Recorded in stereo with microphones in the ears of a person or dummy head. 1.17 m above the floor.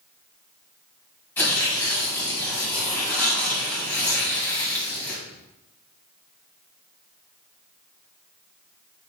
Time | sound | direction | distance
1.4 | tearing paper | 10° left (ahead or behind) | 1.6 m